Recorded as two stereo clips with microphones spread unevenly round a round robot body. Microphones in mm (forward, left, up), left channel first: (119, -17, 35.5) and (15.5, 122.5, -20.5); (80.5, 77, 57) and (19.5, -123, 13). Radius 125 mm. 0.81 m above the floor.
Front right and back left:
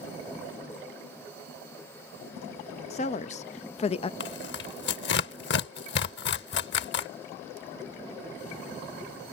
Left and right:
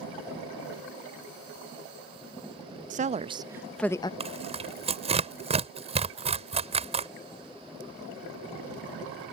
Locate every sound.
2.9 s a woman speaking: 120° right; by 4.1 s 5° left
4.2 s tearing paper: 45° right